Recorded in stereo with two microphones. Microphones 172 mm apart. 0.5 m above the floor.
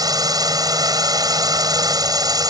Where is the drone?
20° right (ahead or behind).